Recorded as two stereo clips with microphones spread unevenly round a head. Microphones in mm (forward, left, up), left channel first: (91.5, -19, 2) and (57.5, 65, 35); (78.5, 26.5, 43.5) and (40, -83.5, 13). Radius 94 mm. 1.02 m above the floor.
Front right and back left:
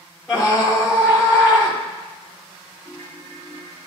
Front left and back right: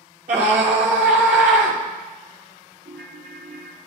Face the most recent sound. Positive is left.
turn(degrees=-150)